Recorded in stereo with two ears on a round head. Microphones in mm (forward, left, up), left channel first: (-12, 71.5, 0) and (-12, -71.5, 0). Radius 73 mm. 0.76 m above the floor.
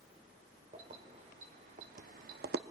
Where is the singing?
I don't hear singing.